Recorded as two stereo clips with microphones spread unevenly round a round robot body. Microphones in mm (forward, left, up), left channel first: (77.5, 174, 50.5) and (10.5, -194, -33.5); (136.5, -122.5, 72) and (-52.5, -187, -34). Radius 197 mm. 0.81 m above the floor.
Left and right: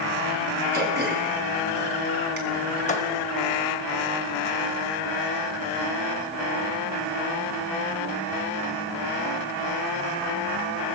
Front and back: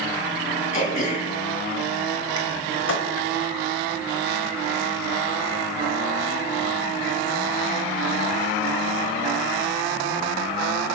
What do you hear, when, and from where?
0.7 s throat clearing: 35° right, 3.5 m
2.9 s a thud: 10° left, 2 m